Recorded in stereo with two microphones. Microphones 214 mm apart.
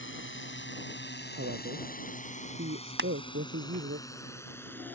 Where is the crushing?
55° right (ahead or behind).